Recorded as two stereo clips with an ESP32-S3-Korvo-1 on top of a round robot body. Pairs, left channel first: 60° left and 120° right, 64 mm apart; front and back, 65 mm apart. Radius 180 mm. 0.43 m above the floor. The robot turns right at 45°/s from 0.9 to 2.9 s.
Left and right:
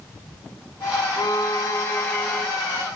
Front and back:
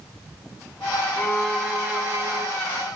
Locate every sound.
1.2 s a violin: 80° left, 2.5 m; by 2.5 s 135° left, 2.5 m